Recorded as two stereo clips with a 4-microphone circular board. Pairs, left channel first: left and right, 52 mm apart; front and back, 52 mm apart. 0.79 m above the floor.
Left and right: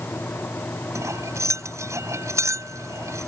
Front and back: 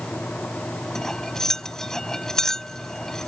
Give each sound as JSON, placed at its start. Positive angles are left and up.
{"t": 0.9, "sound": "cutlery clinking", "azimuth_deg": -80}